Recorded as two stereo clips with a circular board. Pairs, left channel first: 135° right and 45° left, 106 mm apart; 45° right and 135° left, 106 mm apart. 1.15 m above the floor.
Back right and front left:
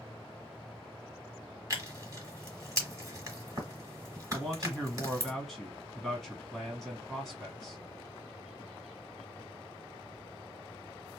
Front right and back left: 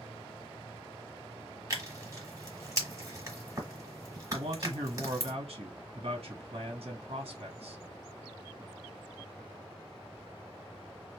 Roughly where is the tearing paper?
Left.